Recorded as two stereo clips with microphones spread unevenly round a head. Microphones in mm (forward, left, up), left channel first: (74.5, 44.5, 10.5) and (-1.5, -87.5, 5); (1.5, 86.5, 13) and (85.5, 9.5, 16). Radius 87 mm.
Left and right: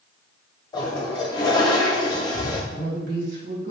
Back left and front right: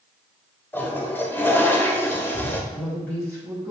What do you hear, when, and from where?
0.7 s a toilet flushing: 90° left, 0.8 m
2.7 s a woman speaking: 140° right, 1.8 m